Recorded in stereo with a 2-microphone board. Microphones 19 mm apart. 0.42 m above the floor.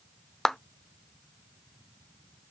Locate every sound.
0.5 s a clap: 25° left (ahead or behind), 0.6 m